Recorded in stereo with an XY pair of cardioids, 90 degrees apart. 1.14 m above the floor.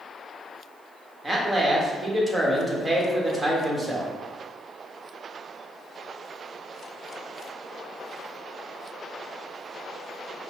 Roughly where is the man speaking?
Ahead.